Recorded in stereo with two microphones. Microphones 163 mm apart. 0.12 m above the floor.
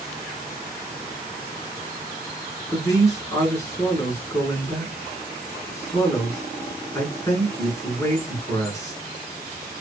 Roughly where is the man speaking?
Centre.